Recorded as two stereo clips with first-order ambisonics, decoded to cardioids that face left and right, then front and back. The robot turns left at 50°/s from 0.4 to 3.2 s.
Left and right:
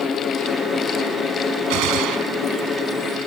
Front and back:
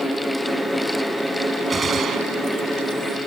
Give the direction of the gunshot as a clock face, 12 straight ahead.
3 o'clock.